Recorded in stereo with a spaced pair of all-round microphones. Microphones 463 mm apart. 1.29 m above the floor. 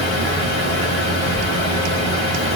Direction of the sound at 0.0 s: 75° left (ahead or behind).